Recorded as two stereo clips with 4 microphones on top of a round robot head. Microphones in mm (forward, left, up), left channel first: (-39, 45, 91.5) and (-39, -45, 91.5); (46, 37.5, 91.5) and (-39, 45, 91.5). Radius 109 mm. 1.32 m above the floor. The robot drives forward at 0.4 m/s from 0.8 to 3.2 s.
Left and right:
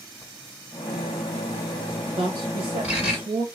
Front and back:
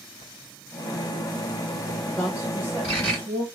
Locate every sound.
0.2 s writing: 160° right, 1.5 m; by 3.2 s 170° right, 2.5 m
2.2 s a woman speaking: 100° right, 0.9 m; by 3.5 s 120° right, 1.1 m